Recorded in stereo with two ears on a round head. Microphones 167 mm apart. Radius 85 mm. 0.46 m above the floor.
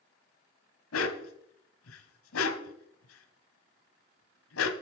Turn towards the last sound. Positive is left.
turn(degrees=85)